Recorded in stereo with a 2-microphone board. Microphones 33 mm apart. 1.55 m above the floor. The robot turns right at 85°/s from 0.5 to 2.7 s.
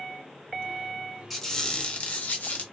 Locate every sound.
1.3 s a squeak: 5° left, 0.7 m; by 2.6 s 115° left, 0.7 m